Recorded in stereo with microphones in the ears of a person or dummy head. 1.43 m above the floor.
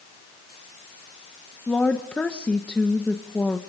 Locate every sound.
1.7 s a woman speaking: 5° left (ahead or behind), 1.4 m